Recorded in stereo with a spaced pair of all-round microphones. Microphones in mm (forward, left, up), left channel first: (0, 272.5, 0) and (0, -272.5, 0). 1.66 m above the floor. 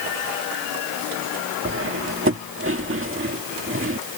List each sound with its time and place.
1.6 s cutlery clinking: 20° right (ahead or behind)